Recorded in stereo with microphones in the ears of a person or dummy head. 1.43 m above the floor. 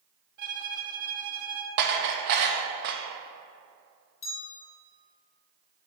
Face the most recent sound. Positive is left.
turn(degrees=35)  # may be behind; listen again after turning